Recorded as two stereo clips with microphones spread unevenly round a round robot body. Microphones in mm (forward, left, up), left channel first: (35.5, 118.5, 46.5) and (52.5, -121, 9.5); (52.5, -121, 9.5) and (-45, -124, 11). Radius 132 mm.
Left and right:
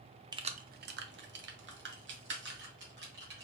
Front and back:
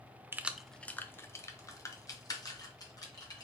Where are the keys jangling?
130° right, 0.6 m; by 3.5 s 45° right, 2.5 m.